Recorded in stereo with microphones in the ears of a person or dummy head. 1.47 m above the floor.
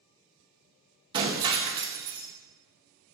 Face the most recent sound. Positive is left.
turn(degrees=-25)  # may be behind; listen again after turning